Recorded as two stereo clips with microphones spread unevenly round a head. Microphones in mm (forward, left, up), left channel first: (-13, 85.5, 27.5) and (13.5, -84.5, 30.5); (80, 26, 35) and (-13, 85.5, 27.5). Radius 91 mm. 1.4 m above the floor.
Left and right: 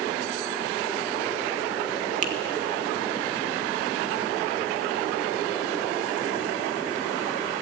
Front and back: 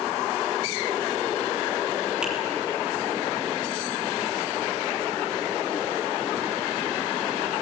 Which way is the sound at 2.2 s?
125° right.